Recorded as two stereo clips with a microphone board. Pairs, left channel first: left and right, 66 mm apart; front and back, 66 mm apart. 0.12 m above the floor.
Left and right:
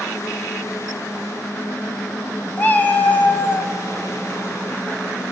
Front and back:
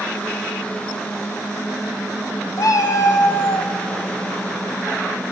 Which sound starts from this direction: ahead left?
A cat meowing, at 2.6 s.